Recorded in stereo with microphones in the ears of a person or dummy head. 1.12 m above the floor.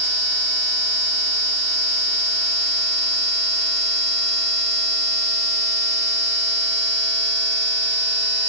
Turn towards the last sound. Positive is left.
No sound to turn to.